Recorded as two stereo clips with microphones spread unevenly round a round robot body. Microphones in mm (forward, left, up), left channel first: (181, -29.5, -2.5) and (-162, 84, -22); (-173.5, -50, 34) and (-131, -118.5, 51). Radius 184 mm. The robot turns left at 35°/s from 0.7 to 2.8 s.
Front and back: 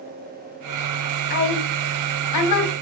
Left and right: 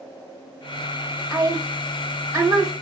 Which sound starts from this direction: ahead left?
A woman speaking, at 1.3 s.